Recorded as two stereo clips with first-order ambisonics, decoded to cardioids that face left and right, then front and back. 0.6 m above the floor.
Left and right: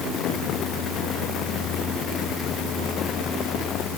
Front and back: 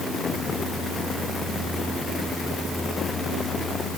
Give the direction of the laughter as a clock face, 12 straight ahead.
I don't hear laughter.